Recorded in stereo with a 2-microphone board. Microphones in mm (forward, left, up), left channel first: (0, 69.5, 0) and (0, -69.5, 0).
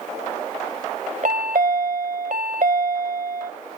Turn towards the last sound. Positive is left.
turn(degrees=-65)  # may be behind; listen again after turning